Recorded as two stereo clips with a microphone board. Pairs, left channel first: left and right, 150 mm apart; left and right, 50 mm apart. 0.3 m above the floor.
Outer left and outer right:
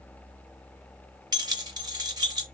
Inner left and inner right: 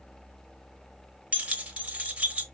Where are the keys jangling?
30° right (ahead or behind), 0.6 m.